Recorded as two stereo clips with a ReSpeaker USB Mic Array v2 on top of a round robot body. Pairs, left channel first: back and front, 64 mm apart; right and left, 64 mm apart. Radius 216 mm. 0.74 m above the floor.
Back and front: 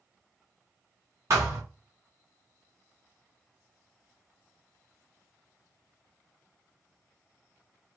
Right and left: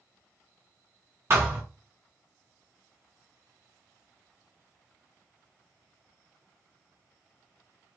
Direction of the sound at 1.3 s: 40° left.